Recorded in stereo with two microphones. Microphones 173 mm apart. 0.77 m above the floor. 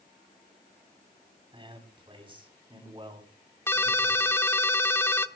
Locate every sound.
1.5 s a man speaking: 30° right (ahead or behind), 6 m
3.7 s a ringtone: 15° left (ahead or behind), 0.9 m